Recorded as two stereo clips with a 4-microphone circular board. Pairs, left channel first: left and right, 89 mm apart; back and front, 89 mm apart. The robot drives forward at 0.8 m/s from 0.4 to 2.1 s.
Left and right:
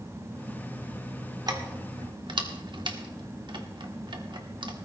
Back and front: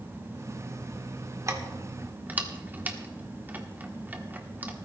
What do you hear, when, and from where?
1.5 s keys jangling: 50° right, 1.7 m; by 4.7 s 70° right, 1.4 m